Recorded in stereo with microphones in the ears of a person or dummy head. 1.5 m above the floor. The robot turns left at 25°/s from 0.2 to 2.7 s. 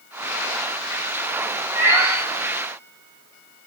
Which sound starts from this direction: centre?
A cat meowing, at 1.8 s.